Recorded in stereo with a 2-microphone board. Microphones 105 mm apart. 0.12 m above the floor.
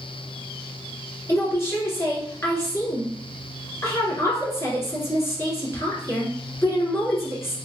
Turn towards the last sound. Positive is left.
turn(degrees=25)  # may be behind; listen again after turning